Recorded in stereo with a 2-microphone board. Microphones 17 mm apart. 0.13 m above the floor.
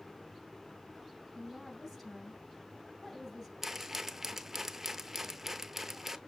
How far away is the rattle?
About 0.6 m.